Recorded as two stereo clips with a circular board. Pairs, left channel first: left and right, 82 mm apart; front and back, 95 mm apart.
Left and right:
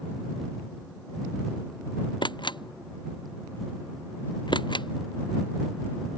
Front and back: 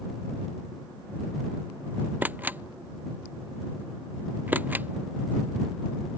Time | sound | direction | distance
2.2 | a camera shutter | 110° left | ?